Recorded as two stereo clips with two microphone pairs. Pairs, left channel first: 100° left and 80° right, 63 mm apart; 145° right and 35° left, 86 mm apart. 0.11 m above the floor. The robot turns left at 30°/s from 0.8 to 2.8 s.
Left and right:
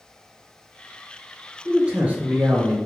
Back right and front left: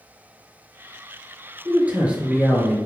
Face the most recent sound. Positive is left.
turn(degrees=-50)